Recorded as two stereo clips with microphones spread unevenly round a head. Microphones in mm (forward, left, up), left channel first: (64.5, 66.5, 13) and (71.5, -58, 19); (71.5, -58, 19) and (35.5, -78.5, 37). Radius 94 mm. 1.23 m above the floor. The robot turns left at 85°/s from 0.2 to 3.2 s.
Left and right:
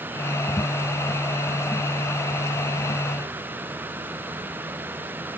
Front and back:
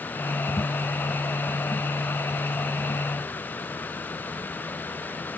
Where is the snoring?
I don't hear snoring.